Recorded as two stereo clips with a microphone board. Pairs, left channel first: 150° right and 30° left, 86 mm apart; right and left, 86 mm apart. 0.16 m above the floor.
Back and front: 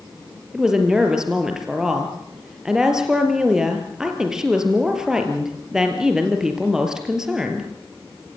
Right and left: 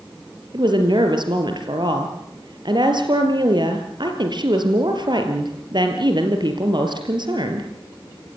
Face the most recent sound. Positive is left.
turn(degrees=115)